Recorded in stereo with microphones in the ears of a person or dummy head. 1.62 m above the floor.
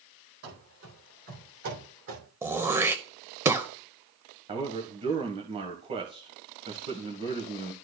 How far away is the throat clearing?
About 0.7 m.